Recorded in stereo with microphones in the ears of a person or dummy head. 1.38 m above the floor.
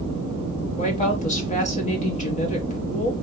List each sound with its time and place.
0.8 s a woman speaking: 35° left (ahead or behind), 0.9 m